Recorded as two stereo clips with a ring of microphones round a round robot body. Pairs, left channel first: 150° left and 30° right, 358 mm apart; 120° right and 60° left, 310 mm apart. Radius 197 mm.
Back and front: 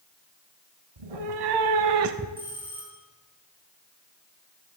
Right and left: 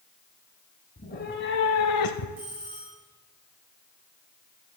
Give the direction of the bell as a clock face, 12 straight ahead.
10 o'clock.